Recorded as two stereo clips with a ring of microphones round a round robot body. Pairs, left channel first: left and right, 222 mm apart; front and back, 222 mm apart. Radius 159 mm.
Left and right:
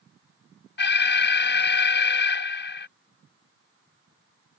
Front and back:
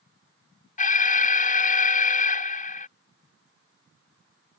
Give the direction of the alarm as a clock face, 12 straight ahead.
10 o'clock.